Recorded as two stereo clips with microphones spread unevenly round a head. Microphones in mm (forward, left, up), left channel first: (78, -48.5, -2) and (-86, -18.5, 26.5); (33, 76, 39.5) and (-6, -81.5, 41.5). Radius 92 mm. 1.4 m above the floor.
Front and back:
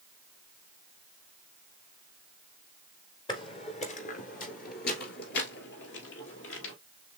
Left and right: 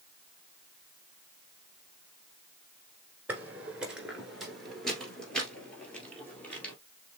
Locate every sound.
3.3 s footsteps: 45° right, 1.4 m; by 6.8 s 5° right, 2.5 m